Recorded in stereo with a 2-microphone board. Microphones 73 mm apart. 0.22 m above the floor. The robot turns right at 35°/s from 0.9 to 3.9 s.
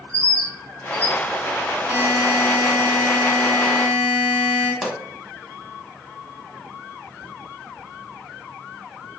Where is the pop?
5° right (ahead or behind), 0.7 m.